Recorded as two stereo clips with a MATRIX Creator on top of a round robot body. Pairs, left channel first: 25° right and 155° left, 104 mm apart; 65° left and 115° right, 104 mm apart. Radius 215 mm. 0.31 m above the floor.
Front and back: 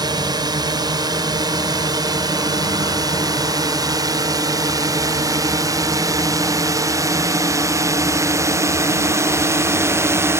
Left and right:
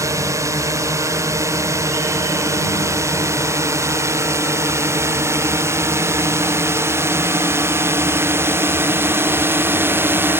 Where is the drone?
165° right.